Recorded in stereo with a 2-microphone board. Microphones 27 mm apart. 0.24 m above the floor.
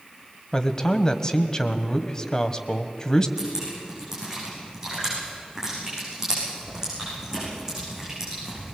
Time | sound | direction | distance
0.5 | a man speaking | 25° left (ahead or behind) | 1.2 m
3.4 | dripping | 20° right (ahead or behind) | 10 m